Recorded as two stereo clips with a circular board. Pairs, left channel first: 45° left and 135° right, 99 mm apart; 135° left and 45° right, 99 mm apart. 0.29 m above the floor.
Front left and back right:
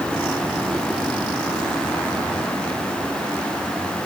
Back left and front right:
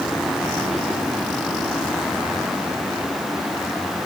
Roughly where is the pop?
I don't hear a pop.